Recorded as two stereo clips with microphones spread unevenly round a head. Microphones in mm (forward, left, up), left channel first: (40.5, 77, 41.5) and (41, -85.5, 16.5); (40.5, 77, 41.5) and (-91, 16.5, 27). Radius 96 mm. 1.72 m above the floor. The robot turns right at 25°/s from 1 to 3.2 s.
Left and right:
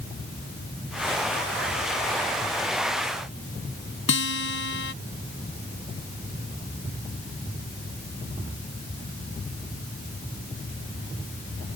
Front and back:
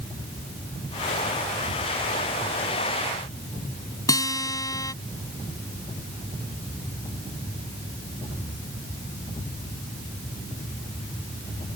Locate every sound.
4.1 s a guitar: 90° left